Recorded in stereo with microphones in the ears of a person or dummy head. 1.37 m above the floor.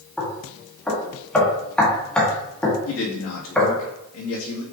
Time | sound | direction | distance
0.2 | knocking | 5° left (ahead or behind) | 1.7 m
2.9 | a man speaking | 80° left | 1.8 m